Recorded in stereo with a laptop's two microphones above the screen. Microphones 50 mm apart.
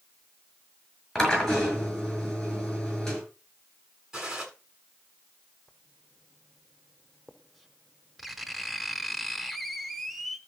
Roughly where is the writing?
Centre.